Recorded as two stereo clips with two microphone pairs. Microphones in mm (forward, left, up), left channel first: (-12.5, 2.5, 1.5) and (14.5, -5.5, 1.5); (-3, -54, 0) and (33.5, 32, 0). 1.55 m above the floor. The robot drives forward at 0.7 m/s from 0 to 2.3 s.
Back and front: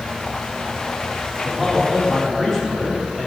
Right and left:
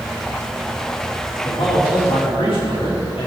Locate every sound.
1.4 s a man speaking: 115° right, 5 m; by 3.3 s 125° right, 5 m